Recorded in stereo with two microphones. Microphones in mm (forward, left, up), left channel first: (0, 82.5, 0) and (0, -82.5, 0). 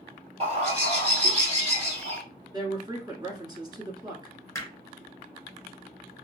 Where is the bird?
40° right (ahead or behind), 2 m.